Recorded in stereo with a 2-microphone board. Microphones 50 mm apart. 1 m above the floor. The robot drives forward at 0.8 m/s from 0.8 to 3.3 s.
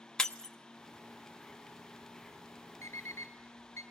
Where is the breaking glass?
10° left (ahead or behind), 0.8 m.